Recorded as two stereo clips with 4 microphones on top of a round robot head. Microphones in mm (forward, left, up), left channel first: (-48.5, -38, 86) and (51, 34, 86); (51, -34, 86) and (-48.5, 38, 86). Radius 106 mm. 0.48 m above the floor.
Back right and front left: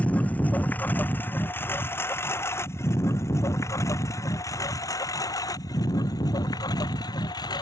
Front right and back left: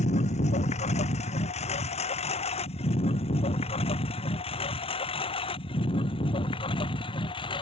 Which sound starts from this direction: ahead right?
A lawn mower, at 0.0 s.